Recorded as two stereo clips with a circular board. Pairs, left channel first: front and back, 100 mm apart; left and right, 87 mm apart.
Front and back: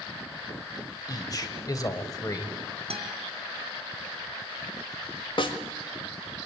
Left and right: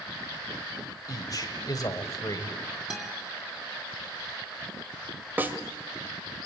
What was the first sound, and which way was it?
A man speaking, 50° left.